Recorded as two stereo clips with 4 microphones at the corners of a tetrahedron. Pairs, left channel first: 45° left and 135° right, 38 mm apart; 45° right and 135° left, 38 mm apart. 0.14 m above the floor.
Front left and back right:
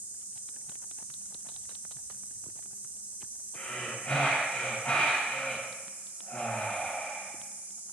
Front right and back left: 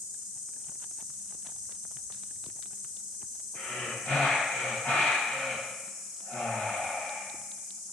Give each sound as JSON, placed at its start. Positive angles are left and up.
{"t": 0.0, "sound": "an insect", "azimuth_deg": -125, "distance_m": 3.0}
{"t": 3.5, "sound": "breathing", "azimuth_deg": 0, "distance_m": 2.5}